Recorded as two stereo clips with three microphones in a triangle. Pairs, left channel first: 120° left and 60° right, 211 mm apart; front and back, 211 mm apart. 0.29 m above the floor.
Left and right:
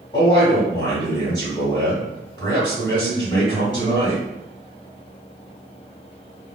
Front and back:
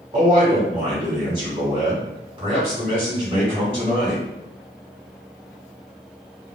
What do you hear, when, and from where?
0.1 s a man speaking: 165° left, 1.3 m